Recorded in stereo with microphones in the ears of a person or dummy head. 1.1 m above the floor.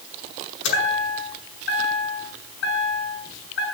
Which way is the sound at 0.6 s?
85° left.